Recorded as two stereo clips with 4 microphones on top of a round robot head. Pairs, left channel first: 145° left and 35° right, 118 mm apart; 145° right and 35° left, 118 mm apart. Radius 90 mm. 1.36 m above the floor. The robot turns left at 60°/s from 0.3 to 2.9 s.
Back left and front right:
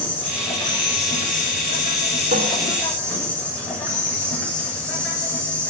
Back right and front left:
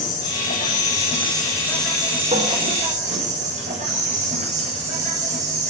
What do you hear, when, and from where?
0.0 s an insect: 140° right, 8.5 m; by 5.7 s 65° left, 8.5 m
2.3 s a cupboard door: 5° right, 2.5 m; by 2.5 s 15° right, 2.5 m